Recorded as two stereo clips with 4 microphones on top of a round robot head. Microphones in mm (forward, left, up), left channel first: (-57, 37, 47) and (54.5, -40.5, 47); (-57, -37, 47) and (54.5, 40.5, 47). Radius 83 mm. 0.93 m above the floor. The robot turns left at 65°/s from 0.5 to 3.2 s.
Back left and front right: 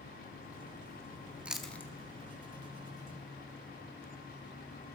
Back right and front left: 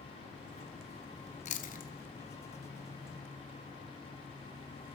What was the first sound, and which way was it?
Chewing, 115° right.